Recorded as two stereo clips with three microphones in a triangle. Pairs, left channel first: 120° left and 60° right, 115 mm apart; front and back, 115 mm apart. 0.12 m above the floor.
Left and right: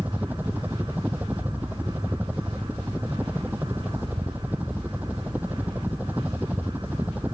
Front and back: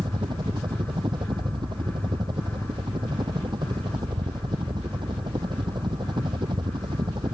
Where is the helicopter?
135° right.